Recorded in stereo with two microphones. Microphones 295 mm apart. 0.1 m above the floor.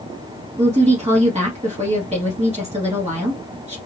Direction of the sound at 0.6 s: 20° right (ahead or behind).